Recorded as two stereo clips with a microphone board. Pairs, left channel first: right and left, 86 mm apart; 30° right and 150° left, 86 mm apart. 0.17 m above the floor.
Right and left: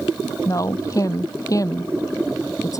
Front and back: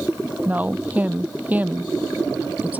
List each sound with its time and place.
0.5 s a woman speaking: 140° right